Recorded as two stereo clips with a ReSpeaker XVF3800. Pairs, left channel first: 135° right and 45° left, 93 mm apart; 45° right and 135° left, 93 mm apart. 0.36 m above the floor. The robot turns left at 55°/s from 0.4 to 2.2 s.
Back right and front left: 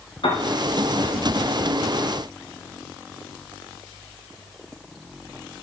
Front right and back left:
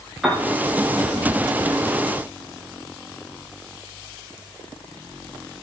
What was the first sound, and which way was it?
A piano, 135° right.